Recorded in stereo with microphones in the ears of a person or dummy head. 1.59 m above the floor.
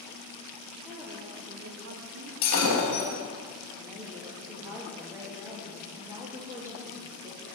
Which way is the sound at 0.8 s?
5° right (ahead or behind).